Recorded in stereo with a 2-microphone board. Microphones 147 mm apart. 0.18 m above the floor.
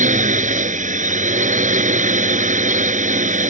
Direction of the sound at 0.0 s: 60° right (ahead or behind).